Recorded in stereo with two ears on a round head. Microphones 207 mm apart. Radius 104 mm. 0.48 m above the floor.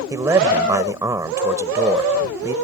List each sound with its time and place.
0.1 s a man speaking: 15° right (ahead or behind)